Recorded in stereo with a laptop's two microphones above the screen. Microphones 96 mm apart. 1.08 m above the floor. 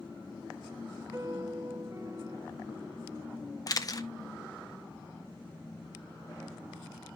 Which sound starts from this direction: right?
A piano, at 1.1 s.